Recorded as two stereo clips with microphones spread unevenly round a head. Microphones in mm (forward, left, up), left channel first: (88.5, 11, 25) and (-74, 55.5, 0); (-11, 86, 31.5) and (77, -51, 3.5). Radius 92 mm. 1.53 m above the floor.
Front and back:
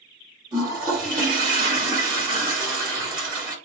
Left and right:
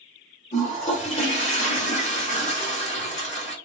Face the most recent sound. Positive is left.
turn(degrees=100)